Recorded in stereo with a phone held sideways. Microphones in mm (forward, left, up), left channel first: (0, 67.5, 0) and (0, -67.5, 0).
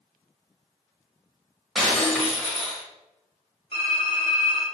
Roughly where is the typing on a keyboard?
Left.